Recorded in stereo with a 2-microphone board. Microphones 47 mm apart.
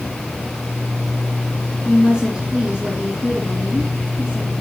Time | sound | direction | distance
1.9 | a woman speaking | 30° right (ahead or behind) | 2.5 m